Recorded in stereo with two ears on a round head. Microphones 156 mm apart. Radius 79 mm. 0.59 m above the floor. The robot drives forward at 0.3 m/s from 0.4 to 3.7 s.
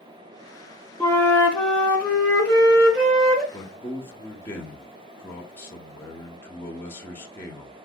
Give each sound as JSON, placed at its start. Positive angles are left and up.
{"t": 1.0, "sound": "a flute", "side_deg": 15, "distance_m": 0.6}
{"t": 3.5, "sound": "a man speaking", "side_deg": 15, "distance_m": 0.9}